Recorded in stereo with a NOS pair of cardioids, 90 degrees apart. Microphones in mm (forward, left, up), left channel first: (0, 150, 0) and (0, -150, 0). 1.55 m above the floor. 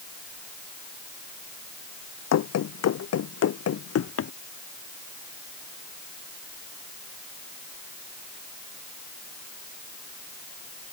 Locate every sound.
2.3 s running footsteps: 65° left; by 4.3 s 50° left